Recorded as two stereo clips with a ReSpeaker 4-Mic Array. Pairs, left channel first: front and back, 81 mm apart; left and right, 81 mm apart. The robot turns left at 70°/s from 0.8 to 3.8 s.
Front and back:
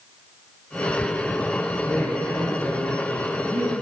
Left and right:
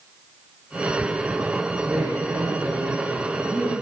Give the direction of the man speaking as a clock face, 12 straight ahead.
2 o'clock.